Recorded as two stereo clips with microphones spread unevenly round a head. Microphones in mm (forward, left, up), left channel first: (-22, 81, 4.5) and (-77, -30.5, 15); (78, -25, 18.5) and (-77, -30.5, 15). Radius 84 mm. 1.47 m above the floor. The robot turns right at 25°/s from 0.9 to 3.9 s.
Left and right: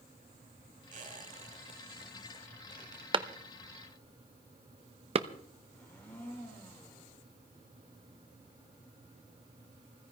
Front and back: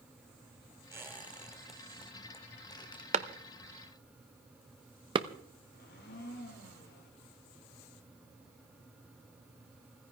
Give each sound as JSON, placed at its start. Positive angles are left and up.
{"t": 0.9, "sound": "a squeak", "azimuth_deg": -105, "distance_m": 1.9}
{"t": 3.1, "sound": "a clap", "azimuth_deg": -145, "distance_m": 0.8}
{"t": 5.7, "sound": "a blender", "azimuth_deg": -20, "distance_m": 2.5}